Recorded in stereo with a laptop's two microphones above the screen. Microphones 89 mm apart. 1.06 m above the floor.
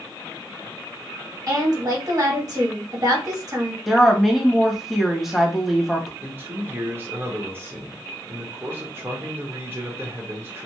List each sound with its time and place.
1.5 s a woman speaking: 45° right (ahead or behind), 1.1 m
3.9 s a woman speaking: centre (ahead or behind), 1.2 m
6.2 s a man speaking: 25° right (ahead or behind), 1.1 m